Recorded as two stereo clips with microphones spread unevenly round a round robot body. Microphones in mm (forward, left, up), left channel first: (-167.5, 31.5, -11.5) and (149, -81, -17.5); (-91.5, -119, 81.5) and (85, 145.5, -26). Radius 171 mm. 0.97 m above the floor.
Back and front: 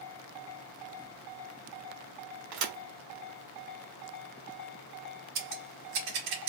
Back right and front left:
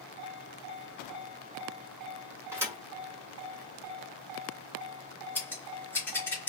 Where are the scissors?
40° right, 1.5 m.